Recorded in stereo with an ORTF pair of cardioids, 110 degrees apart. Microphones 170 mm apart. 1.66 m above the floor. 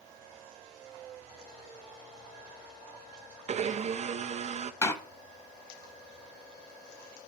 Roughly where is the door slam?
Ahead.